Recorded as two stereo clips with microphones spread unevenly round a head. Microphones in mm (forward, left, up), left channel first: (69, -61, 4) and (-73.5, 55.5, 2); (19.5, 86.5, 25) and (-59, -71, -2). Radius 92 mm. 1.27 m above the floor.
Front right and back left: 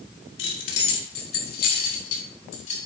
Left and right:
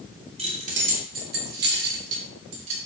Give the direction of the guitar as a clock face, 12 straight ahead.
No guitar in this recording.